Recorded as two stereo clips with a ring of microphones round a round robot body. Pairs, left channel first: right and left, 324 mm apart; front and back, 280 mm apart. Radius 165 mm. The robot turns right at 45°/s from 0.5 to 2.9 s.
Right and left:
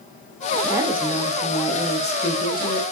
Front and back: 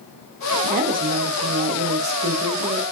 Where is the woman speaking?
160° left, 0.6 m; by 2.8 s 105° right, 0.6 m.